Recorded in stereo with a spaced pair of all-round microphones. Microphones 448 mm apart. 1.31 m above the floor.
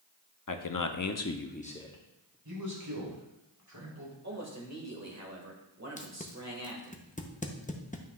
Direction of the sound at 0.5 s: 45° left (ahead or behind).